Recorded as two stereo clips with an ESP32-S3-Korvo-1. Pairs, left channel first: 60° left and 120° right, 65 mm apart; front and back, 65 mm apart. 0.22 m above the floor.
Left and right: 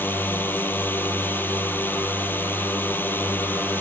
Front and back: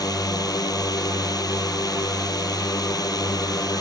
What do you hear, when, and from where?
0.0 s a drone: straight ahead